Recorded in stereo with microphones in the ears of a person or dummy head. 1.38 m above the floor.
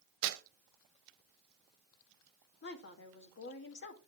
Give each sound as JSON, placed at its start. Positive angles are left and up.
{"t": 0.2, "sound": "tearing paper", "side_deg": -65, "distance_m": 0.9}
{"t": 2.6, "sound": "a woman speaking", "side_deg": 55, "distance_m": 2.0}